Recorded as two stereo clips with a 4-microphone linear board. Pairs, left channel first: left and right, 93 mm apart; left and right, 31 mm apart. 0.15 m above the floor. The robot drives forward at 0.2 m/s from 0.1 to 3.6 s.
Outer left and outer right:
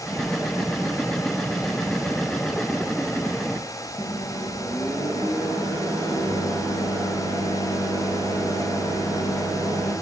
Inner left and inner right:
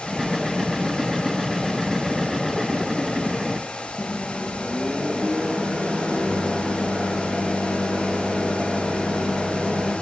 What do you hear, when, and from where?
4.0 s a microwave: 45° left (ahead or behind), 1.8 m